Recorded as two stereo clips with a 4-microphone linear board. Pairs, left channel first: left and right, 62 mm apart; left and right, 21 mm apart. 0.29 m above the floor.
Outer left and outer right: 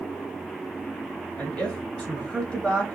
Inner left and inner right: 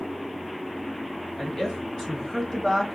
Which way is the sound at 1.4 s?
20° left (ahead or behind).